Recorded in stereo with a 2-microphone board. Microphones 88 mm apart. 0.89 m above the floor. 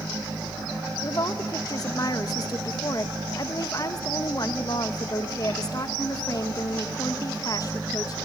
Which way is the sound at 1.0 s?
45° left (ahead or behind).